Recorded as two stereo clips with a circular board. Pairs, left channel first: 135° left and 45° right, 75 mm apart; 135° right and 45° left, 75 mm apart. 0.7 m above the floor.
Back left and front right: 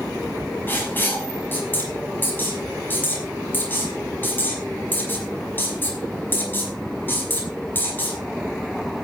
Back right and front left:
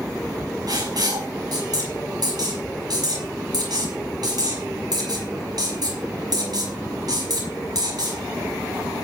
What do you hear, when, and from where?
0.7 s writing: 70° left, 5.5 m